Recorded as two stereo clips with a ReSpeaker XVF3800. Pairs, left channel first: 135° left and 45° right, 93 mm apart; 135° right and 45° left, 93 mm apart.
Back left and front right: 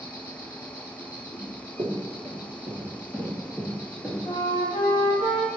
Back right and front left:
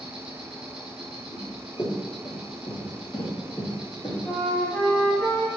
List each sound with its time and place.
0.0 s an insect: 120° left, 0.7 m
1.3 s running footsteps: 75° right, 1.0 m; by 4.2 s 145° right, 1.6 m
4.2 s a flute: 150° left, 0.7 m